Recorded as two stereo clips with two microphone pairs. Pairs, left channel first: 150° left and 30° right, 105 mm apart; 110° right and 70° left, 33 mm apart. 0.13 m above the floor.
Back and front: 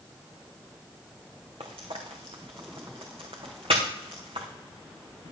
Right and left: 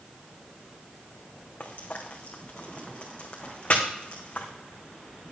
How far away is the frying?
About 2 m.